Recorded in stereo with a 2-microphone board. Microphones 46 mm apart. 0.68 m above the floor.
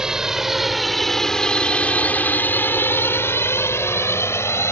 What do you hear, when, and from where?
0.0 s a drone: 10° right (ahead or behind); by 4.7 s 70° left (ahead or behind)